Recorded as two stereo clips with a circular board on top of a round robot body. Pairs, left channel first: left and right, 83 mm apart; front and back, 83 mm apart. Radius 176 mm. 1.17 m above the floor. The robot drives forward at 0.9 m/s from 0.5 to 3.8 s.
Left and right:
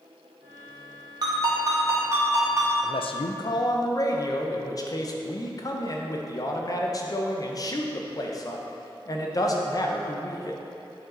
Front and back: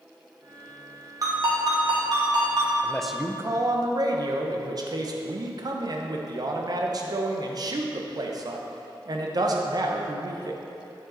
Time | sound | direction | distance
1.2 | a ringtone | 130° right | 1.8 m
2.8 | a man speaking | 70° left | 0.6 m